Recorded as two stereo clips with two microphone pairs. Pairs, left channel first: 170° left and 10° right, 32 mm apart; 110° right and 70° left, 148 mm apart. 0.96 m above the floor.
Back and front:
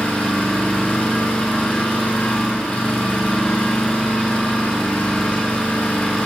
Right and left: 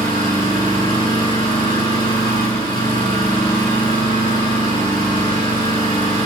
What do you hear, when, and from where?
0.0 s an engine running: 160° right, 9 m